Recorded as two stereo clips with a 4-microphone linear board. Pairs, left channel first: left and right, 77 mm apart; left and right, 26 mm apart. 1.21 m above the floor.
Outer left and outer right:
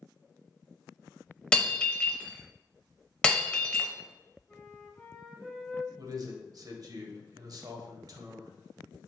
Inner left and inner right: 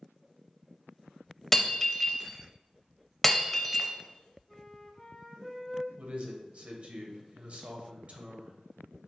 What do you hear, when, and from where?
1.5 s breaking glass: 15° left (ahead or behind), 0.6 m
4.5 s a flute: 5° left (ahead or behind), 0.9 m
6.0 s a man speaking: 55° right (ahead or behind), 0.9 m